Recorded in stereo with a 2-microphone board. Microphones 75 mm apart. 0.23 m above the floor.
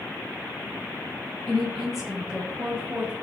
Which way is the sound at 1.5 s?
10° left (ahead or behind).